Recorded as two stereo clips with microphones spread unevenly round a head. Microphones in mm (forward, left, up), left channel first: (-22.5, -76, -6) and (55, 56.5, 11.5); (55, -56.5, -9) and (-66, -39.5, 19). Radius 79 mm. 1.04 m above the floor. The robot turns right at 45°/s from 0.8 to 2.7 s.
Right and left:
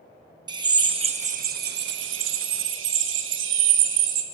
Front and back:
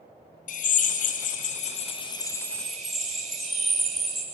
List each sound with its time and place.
0.5 s a drill: 5° right, 1.7 m; by 4.2 s 80° left, 1.7 m